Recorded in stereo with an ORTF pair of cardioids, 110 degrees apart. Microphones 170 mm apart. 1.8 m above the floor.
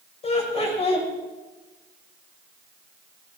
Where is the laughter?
40° left, 8 m.